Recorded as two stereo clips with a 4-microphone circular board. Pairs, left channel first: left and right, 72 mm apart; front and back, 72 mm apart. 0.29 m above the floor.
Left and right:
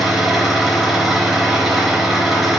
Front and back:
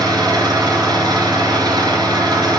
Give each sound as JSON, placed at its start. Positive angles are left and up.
{"t": 0.0, "sound": "an engine running", "azimuth_deg": -175, "distance_m": 3.5}